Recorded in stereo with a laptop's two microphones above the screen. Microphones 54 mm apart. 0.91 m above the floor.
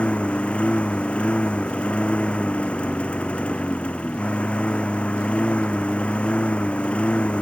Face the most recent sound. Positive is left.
turn(degrees=20)  # may be behind; listen again after turning